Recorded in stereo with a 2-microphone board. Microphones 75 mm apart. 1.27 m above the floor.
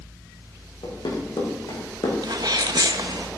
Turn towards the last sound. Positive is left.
turn(degrees=-60)  # may be behind; listen again after turning